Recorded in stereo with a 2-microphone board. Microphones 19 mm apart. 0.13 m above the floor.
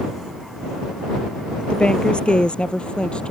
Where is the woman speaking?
65° left (ahead or behind); by 3.3 s 70° left (ahead or behind).